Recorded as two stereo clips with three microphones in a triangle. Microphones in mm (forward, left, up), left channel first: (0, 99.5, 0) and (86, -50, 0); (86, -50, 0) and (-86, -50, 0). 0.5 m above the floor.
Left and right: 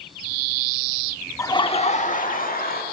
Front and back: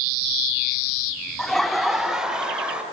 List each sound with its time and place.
1.4 s laughter: 80° left, 0.7 m; by 2.8 s 95° left, 1.7 m